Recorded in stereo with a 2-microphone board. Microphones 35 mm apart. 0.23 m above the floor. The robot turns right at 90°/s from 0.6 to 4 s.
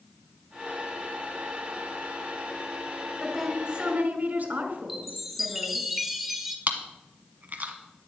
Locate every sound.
3.2 s a woman speaking: 170° left, 2.0 m; by 5.9 s 120° right, 2.0 m
4.9 s a chime: 5° right (ahead or behind), 1.2 m
6.7 s chewing: 50° right (ahead or behind), 1.4 m